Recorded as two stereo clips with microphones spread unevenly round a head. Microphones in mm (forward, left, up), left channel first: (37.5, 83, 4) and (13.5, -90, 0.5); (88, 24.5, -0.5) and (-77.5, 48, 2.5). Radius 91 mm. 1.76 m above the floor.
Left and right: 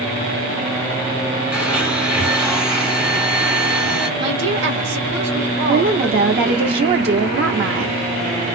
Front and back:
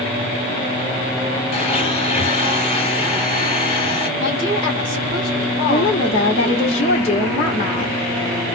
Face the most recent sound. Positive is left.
turn(degrees=-70)